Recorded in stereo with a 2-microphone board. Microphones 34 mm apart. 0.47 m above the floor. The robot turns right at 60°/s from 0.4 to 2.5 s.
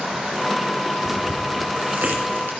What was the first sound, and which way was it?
Tearing paper, 10° right (ahead or behind).